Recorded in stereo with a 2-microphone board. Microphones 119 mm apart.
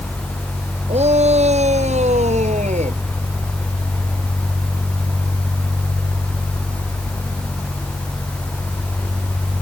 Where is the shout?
60° right (ahead or behind); by 3.0 s 70° right (ahead or behind).